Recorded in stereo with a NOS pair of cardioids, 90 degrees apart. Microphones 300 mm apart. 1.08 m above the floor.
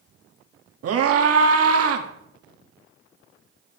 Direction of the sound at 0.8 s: 55° right.